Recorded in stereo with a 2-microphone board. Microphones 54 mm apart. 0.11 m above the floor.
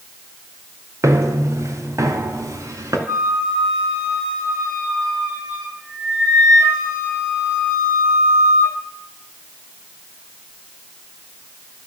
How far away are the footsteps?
About 2.0 m.